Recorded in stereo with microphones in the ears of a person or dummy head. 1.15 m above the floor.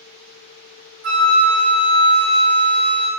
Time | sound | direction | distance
1.0 | a flute | 50° right (ahead or behind) | 1.3 m